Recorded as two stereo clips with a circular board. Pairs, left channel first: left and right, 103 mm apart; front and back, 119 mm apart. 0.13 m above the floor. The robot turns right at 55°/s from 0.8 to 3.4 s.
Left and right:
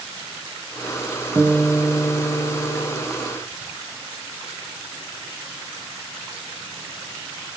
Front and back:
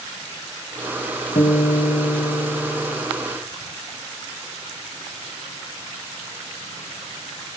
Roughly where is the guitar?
Ahead right.